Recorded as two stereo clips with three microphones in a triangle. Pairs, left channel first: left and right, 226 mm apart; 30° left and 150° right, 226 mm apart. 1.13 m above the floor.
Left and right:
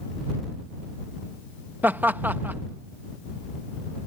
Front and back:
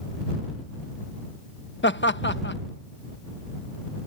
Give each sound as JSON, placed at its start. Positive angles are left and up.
{"t": 1.8, "sound": "laughter", "azimuth_deg": -10}